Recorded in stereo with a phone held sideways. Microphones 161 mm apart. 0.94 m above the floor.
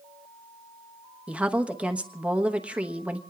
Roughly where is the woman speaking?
Centre.